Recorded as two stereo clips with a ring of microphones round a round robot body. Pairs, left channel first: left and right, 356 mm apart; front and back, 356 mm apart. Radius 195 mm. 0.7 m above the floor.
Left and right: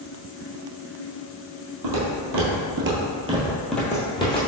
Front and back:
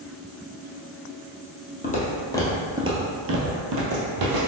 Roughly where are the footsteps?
Ahead right.